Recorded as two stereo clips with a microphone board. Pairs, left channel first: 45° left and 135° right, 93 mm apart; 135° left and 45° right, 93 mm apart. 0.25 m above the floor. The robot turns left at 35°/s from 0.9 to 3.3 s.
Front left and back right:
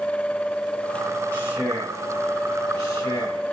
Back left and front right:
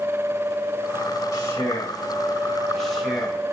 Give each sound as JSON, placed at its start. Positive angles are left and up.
{"t": 1.3, "sound": "a man speaking", "azimuth_deg": 105, "distance_m": 1.9}